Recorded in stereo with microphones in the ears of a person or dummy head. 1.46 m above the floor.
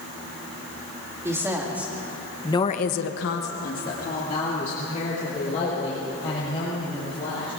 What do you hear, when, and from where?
1.2 s a woman speaking: 15° right (ahead or behind), 2.5 m; by 7.5 s 35° left (ahead or behind), 7 m